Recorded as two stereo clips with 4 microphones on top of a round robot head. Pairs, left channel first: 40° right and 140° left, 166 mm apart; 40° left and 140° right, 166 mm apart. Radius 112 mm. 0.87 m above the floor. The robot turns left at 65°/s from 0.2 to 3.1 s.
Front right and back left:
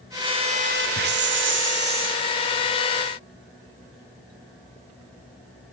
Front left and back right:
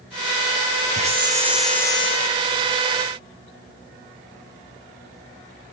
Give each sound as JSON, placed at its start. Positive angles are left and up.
{"t": 0.9, "sound": "a hiss", "azimuth_deg": 175, "distance_m": 2.0}